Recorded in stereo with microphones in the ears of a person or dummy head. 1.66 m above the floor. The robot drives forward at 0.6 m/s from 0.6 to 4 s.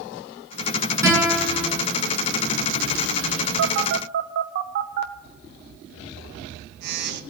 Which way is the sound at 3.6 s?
80° right.